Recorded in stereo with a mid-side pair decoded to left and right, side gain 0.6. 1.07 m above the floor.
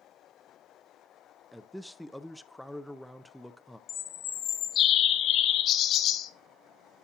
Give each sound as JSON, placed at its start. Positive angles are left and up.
{"t": 1.5, "sound": "a man speaking", "azimuth_deg": 0, "distance_m": 0.5}
{"t": 3.9, "sound": "a bird", "azimuth_deg": 55, "distance_m": 0.7}